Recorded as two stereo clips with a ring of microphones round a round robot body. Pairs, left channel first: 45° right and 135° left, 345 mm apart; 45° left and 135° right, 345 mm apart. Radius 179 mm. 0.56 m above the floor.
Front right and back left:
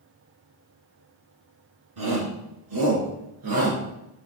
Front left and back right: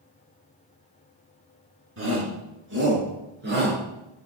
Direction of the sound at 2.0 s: 170° left.